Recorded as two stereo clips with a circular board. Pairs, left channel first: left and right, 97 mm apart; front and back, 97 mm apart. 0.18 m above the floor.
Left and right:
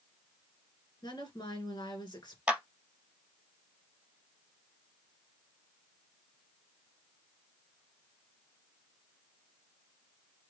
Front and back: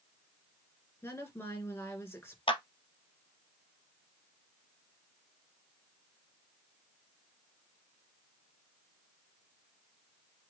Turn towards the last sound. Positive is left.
turn(degrees=-10)